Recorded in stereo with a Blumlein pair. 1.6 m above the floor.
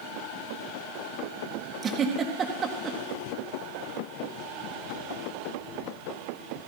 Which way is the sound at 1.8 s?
20° right.